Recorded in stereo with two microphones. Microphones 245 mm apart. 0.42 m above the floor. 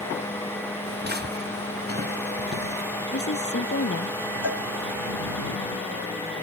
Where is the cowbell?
75° right (ahead or behind).